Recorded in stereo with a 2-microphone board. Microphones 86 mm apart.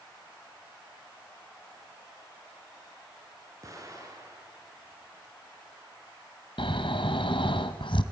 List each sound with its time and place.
3.6 s an explosion: 40° right (ahead or behind), 5.5 m
6.6 s snoring: 85° left, 1.5 m